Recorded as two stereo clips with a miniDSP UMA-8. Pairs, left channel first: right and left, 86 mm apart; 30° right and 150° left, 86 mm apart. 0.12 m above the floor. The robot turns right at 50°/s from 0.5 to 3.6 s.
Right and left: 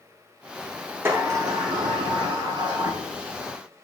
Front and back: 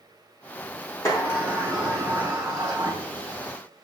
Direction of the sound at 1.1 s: 25° left.